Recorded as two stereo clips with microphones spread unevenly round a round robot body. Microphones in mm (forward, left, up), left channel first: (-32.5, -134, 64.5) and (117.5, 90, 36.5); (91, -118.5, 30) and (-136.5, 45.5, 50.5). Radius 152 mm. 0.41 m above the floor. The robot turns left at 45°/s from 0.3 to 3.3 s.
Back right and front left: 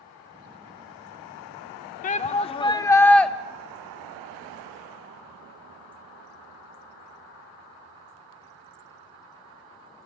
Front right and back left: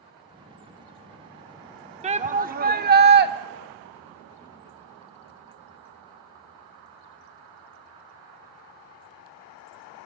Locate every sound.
2.0 s a shout: 165° right, 0.9 m; by 3.3 s 140° left, 0.9 m